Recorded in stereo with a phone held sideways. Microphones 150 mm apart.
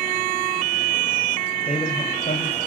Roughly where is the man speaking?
Left.